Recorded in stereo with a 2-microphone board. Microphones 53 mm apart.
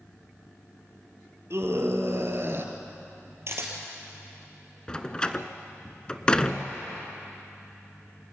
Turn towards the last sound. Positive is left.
turn(degrees=15)  # may be behind; listen again after turning